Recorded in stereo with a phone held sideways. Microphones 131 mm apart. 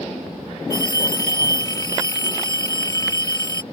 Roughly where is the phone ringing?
Left.